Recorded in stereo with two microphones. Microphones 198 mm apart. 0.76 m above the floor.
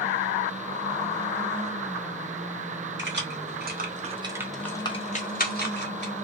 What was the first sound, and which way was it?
Keys jangling, 65° right (ahead or behind).